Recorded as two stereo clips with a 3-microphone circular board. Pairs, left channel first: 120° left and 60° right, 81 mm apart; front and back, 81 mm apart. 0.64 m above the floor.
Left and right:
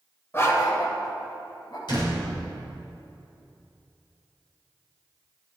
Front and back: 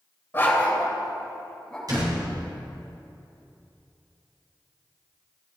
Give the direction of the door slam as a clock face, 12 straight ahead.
7 o'clock.